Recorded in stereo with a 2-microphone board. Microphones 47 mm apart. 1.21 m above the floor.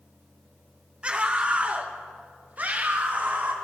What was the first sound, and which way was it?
A scream, 25° right (ahead or behind).